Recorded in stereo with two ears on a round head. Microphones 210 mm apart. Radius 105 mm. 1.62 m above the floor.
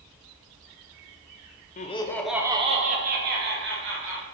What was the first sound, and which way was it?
Laughter, 30° left (ahead or behind).